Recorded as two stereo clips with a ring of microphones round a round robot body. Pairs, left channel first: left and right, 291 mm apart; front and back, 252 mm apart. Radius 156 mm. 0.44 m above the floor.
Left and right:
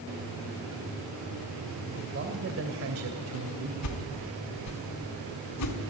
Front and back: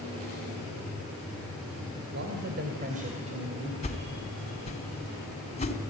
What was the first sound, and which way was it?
A man speaking, 140° right.